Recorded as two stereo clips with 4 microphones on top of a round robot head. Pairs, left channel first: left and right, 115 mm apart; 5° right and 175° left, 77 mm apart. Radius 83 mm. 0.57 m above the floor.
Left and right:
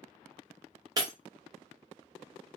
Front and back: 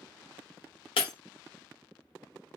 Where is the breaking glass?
30° right, 0.8 m.